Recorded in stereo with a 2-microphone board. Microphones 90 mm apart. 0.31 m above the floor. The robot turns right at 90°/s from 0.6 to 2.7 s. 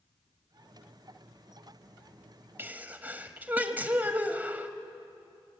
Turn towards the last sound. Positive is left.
turn(degrees=-20)  # may be behind; listen again after turning